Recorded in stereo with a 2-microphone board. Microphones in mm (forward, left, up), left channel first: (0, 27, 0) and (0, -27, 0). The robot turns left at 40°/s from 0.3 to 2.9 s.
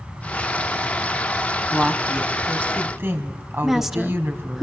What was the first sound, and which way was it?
A woman speaking, 5° left.